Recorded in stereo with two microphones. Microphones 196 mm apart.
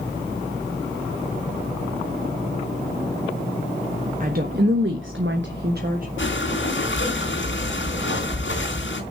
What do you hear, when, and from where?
4.2 s a woman speaking: 45° right (ahead or behind), 1.4 m
6.2 s breathing: 75° left (ahead or behind), 3 m